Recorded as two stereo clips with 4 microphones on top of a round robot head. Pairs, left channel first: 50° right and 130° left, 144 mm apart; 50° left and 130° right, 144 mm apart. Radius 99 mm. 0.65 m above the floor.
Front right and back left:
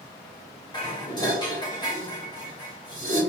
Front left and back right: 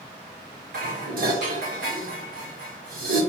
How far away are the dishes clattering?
About 1.5 m.